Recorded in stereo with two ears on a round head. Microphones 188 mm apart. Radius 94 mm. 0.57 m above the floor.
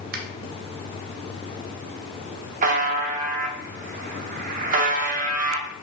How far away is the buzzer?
About 0.6 m.